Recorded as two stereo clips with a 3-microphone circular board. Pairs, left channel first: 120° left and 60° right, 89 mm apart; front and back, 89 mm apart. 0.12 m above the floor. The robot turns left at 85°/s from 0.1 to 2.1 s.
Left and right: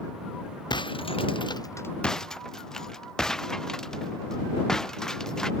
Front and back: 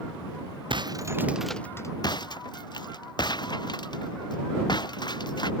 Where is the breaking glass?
155° left; by 5.5 s 35° left.